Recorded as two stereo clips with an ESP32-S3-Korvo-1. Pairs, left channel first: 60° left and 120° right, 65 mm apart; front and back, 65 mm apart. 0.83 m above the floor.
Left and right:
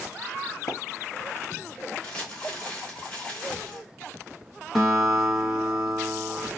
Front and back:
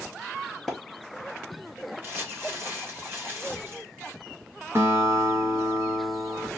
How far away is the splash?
About 1.0 m.